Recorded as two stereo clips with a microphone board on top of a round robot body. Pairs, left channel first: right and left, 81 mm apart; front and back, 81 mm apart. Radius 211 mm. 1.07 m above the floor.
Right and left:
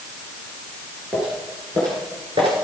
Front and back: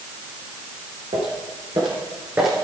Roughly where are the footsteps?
Behind.